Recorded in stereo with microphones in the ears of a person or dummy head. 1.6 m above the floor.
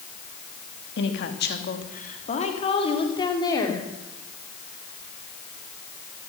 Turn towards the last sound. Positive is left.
turn(degrees=15)  # may be behind; listen again after turning